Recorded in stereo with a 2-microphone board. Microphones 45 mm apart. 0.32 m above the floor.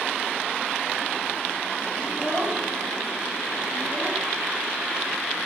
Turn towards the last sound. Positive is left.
turn(degrees=-20)  # may be behind; listen again after turning